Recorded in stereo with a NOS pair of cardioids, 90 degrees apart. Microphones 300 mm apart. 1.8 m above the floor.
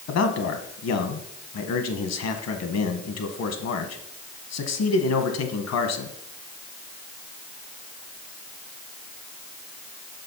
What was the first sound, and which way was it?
A man speaking, 60° left.